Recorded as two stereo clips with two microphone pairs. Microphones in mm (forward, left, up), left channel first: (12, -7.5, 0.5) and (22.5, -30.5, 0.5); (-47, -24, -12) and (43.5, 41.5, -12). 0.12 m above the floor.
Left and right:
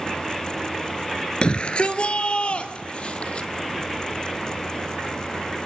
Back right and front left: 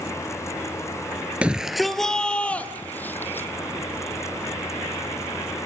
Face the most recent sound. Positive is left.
turn(degrees=145)